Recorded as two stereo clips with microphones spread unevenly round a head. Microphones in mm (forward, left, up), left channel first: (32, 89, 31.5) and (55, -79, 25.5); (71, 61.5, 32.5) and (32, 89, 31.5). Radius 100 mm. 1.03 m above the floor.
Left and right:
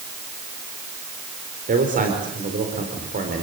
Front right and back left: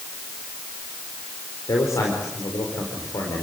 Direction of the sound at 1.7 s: 45° right.